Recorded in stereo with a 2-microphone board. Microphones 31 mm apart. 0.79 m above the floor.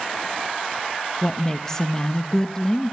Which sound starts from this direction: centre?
A woman speaking, at 1.2 s.